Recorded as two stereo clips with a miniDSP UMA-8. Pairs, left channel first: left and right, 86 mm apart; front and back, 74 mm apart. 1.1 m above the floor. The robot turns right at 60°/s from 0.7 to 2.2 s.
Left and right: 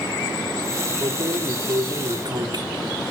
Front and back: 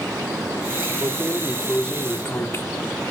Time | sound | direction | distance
1.0 | keys jangling | 130° right | 1.6 m